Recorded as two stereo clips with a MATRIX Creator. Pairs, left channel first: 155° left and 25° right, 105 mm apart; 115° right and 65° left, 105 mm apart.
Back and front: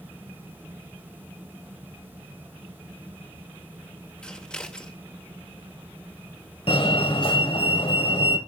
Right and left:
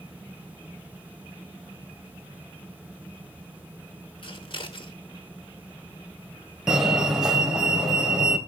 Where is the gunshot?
No gunshot in this recording.